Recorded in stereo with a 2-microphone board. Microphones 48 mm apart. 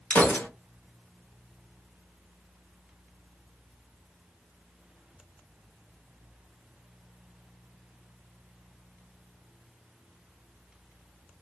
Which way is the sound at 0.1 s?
35° left (ahead or behind).